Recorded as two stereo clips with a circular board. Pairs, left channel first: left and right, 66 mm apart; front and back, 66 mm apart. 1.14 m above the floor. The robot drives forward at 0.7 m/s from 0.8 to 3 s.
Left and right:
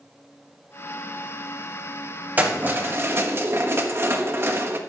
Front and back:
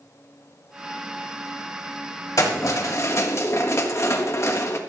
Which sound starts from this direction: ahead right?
Keys jangling, at 2.4 s.